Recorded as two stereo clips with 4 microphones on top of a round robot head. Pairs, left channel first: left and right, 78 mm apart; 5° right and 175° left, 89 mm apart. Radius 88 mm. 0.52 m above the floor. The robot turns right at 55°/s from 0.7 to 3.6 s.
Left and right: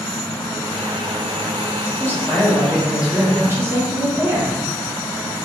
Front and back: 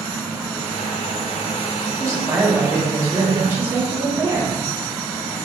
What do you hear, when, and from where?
2.0 s a woman speaking: 140° left, 1.4 m; by 4.5 s 130° right, 1.4 m